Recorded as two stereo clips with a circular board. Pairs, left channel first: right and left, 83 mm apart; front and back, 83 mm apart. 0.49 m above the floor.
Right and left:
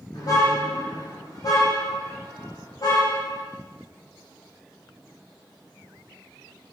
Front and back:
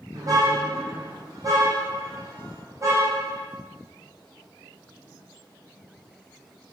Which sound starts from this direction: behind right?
A car horn, at 0.1 s.